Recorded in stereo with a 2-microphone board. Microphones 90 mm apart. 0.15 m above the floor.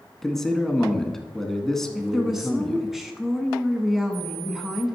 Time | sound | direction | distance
0.2 | a man speaking | 5° left (ahead or behind) | 1.1 m
1.9 | a woman speaking | 5° right (ahead or behind) | 1.1 m